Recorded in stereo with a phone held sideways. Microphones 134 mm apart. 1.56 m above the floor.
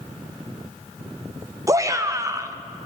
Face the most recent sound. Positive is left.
turn(degrees=-25)  # may be behind; listen again after turning